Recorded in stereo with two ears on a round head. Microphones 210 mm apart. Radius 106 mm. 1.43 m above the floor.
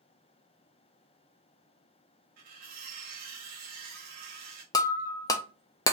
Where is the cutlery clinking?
40° right (ahead or behind), 1.1 m.